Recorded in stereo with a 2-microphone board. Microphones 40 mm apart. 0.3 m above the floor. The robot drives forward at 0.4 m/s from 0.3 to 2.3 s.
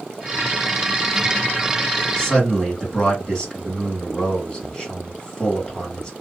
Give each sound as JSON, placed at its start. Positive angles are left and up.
{"t": 2.2, "sound": "a man speaking", "side_deg": 25, "distance_m": 1.7}